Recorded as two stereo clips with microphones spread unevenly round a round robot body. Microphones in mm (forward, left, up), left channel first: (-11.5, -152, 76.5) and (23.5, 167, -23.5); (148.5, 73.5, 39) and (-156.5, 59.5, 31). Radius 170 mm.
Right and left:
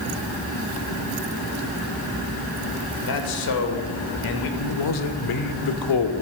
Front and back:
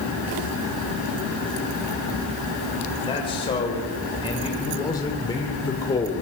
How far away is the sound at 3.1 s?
About 4 m.